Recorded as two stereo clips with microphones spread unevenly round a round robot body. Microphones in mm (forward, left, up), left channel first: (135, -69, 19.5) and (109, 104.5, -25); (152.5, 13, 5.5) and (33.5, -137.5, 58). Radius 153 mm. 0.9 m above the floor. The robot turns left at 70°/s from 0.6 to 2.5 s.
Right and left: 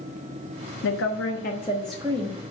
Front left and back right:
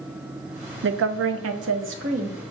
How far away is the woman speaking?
About 0.9 m.